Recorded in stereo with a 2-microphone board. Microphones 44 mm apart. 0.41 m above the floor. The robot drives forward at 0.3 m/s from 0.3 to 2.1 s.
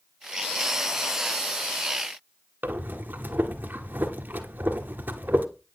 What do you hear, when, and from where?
2.6 s breathing: 50° right (ahead or behind), 1.5 m